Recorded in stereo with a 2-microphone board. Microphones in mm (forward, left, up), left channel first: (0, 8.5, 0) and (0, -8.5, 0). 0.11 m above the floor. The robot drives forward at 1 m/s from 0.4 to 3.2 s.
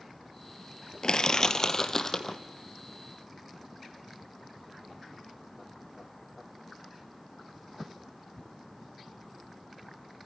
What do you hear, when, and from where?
1.0 s crushing: 45° left (ahead or behind), 0.9 m; by 2.4 s 20° left (ahead or behind), 1.9 m